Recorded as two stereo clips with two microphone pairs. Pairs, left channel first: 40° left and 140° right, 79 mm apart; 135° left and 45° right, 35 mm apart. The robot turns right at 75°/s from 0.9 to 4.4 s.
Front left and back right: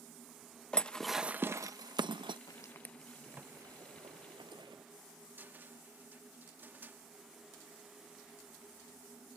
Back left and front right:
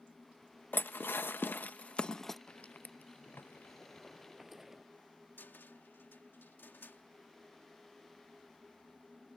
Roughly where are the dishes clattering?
Behind left.